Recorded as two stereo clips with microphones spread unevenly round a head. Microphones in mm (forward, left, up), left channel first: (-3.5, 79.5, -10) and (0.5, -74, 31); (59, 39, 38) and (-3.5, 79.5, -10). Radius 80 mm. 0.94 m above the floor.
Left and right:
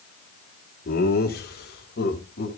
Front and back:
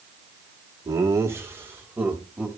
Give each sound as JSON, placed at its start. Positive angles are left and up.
{"t": 0.8, "sound": "laughter", "azimuth_deg": 115, "distance_m": 2.0}